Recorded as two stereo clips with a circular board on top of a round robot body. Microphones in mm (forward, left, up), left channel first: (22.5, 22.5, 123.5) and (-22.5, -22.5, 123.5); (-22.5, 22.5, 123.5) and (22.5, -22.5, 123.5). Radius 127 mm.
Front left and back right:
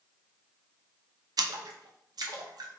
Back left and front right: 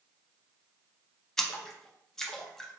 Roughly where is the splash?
Behind right.